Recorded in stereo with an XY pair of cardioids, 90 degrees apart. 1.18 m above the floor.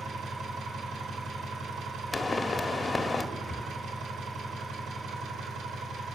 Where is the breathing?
20° left, 0.6 m.